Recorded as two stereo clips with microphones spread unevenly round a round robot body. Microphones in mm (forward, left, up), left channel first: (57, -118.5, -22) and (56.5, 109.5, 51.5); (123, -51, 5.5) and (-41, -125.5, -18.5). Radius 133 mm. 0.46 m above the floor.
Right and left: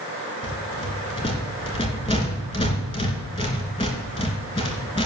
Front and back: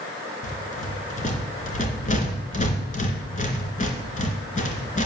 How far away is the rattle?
About 3 m.